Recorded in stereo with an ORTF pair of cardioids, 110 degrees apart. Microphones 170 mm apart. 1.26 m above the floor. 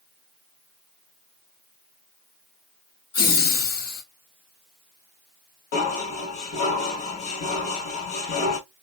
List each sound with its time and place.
3.1 s laughter: 65° left, 1.8 m
5.7 s dishes clattering: 70° left, 1.6 m